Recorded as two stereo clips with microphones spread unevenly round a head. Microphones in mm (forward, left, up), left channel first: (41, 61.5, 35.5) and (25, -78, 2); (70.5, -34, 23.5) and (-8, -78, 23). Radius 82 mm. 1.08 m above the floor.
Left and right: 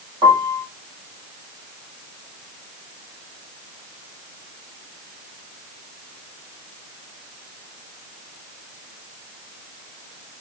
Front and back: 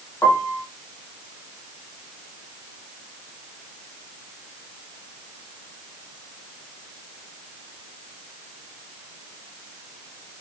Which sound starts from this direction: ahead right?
A piano, at 0.2 s.